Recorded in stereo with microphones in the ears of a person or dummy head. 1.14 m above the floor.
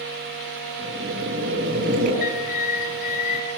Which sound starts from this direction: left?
A bird, at 2.2 s.